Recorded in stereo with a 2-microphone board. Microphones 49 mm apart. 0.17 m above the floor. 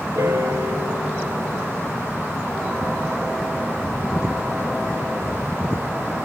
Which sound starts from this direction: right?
A piano, at 0.1 s.